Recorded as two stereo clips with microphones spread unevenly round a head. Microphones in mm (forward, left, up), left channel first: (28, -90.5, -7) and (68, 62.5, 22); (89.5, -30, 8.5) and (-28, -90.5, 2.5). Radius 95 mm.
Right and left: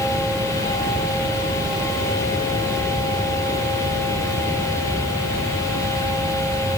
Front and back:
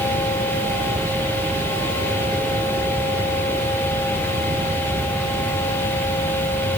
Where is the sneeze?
I don't hear a sneeze.